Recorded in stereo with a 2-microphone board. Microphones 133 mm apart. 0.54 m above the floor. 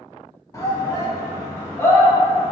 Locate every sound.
0.5 s a shout: 20° left (ahead or behind), 0.9 m; by 2.5 s 15° left (ahead or behind), 1.5 m